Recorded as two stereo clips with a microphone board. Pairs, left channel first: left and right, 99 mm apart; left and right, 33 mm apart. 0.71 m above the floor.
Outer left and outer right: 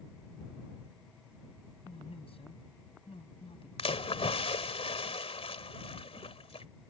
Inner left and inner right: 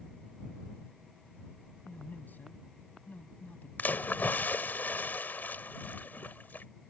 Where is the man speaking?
70° left (ahead or behind).